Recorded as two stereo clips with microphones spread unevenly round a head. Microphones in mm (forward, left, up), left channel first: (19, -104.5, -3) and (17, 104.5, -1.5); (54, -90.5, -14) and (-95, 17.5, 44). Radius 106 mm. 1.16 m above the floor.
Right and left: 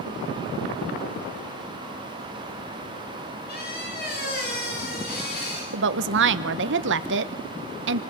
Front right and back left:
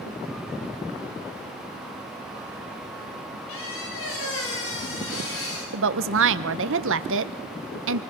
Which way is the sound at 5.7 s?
115° left.